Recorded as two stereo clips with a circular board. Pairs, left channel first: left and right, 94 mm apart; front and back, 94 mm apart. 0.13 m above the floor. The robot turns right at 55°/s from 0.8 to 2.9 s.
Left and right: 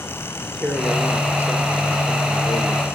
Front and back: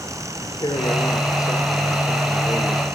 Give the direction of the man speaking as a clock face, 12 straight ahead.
12 o'clock.